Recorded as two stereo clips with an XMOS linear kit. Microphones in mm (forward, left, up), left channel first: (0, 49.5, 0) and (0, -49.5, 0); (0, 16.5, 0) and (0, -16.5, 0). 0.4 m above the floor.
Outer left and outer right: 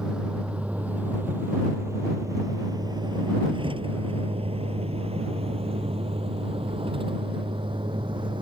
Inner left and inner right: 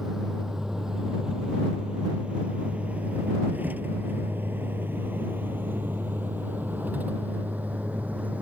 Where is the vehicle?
10° right (ahead or behind); by 8.4 s 55° right (ahead or behind).